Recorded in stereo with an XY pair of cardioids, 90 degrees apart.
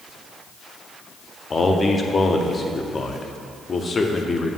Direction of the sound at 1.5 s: 40° left.